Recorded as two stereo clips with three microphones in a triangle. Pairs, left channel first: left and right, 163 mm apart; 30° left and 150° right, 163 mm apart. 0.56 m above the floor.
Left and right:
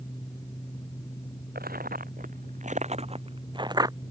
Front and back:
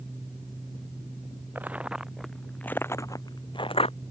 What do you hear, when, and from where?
1.6 s footsteps: 70° right; by 4.0 s 20° right